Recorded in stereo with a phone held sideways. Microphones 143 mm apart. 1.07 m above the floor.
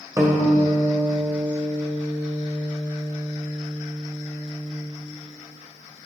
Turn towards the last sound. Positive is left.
turn(degrees=-25)  # may be behind; listen again after turning